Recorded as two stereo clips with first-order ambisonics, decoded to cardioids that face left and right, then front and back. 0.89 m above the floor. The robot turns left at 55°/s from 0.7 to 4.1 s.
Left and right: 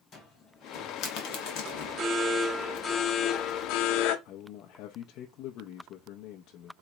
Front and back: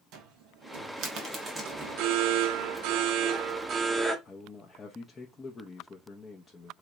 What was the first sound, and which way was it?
A cupboard door, 145° left.